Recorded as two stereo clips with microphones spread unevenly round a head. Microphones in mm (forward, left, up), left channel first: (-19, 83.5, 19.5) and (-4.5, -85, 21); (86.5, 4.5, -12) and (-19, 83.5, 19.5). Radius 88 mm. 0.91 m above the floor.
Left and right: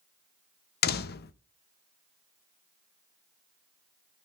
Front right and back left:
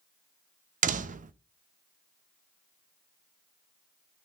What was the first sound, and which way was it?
A door slam, 115° left.